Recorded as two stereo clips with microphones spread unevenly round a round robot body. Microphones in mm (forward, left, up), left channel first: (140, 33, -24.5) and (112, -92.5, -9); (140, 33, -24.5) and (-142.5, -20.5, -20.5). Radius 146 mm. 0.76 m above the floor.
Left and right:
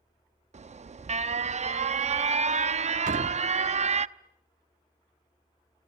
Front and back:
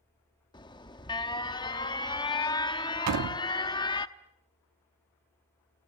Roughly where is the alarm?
Ahead right.